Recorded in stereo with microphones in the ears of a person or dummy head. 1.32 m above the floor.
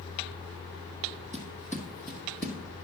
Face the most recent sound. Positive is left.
turn(degrees=10)  # may be behind; listen again after turning